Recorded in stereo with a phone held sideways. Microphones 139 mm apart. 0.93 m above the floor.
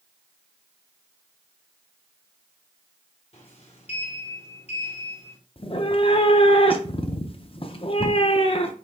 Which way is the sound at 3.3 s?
45° left (ahead or behind).